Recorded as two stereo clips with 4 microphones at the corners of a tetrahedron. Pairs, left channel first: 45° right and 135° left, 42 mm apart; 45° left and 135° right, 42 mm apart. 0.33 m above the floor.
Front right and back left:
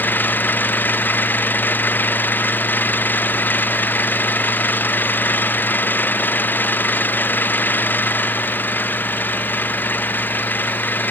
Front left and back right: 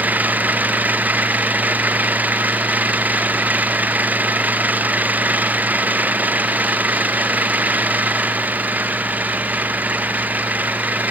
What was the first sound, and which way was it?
An engine running, 85° right.